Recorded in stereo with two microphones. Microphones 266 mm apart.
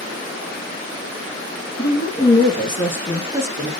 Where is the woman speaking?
35° left (ahead or behind), 1.9 m; by 3.7 s 20° right (ahead or behind), 1.5 m.